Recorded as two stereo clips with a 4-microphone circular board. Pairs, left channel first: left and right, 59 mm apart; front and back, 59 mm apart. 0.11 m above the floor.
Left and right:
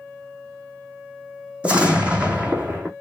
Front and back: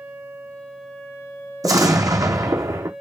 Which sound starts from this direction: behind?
An explosion, at 1.6 s.